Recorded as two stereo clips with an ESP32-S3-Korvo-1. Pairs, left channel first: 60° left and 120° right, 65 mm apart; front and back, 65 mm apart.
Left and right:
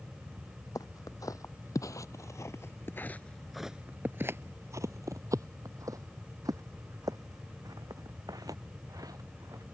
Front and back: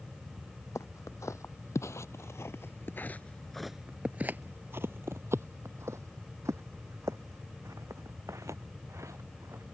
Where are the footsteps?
40° left; by 9.6 s 140° right.